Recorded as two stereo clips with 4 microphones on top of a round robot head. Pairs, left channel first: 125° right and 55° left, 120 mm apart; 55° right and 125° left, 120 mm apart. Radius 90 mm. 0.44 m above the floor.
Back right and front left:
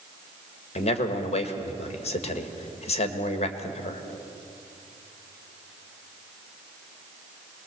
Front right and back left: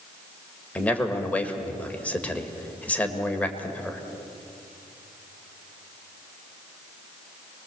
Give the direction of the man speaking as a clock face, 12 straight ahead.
4 o'clock.